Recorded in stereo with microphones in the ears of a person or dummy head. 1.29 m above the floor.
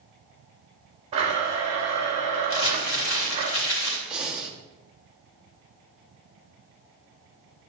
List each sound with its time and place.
1.1 s a blender: 25° right (ahead or behind), 3.5 m
2.5 s crumpling: 70° left (ahead or behind), 4 m
4.1 s breathing: centre (ahead or behind), 1.1 m